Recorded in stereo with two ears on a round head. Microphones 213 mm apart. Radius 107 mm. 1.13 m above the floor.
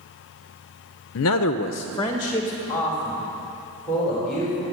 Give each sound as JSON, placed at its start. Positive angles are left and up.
{"t": 1.1, "sound": "a man speaking", "side_deg": 55, "distance_m": 0.5}